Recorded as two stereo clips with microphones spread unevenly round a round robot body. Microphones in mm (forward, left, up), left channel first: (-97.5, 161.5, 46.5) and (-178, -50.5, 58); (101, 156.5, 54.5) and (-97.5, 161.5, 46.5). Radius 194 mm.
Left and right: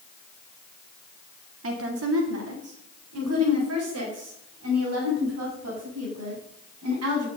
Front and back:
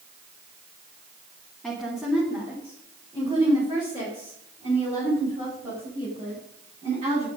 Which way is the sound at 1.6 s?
90° right.